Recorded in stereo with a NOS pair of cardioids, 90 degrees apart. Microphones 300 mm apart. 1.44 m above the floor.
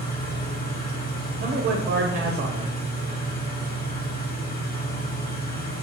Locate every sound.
0.0 s an engine running: 30° left, 1.2 m
1.4 s a man speaking: 40° right, 0.6 m